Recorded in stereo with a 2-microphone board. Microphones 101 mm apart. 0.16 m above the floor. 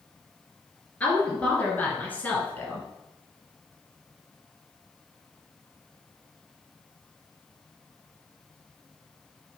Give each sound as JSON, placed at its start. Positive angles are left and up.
{"t": 1.0, "sound": "a woman speaking", "side_deg": 15, "distance_m": 3.0}